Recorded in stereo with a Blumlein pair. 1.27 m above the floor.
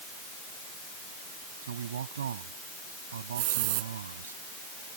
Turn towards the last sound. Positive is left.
turn(degrees=-50)